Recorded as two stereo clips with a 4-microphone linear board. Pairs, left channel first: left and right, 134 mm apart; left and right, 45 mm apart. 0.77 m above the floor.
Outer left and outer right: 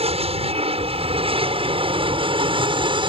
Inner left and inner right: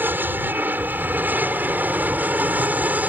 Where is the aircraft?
50° right (ahead or behind); by 3.1 s 40° right (ahead or behind).